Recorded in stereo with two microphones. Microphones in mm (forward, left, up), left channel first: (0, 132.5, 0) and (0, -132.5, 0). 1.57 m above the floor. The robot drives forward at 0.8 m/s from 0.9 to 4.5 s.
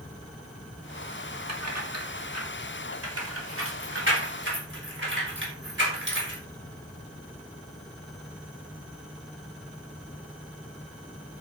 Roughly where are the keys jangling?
Right.